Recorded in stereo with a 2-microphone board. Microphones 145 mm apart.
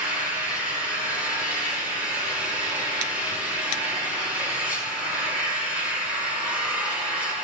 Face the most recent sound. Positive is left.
turn(degrees=-10)  # may be behind; listen again after turning